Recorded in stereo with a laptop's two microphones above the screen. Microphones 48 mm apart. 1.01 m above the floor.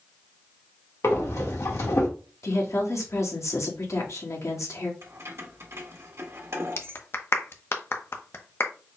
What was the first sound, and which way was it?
Breathing, 75° left (ahead or behind).